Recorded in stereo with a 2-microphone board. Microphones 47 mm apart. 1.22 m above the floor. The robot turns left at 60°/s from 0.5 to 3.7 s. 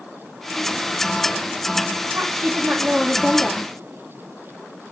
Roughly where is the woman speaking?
Right.